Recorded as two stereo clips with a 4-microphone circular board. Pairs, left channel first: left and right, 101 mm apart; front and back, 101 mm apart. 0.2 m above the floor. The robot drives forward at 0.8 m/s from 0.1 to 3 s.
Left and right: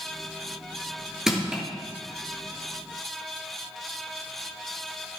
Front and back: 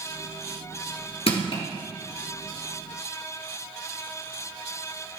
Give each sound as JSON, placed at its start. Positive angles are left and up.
{"t": 1.3, "sound": "crushing", "azimuth_deg": -5, "distance_m": 3.0}